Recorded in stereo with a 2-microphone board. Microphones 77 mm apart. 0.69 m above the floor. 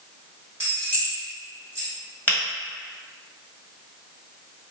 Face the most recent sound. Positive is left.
turn(degrees=20)  # may be behind; listen again after turning